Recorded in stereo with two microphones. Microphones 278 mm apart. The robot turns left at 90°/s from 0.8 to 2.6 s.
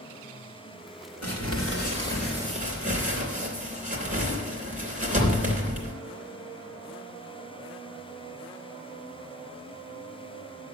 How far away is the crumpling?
About 2.5 m.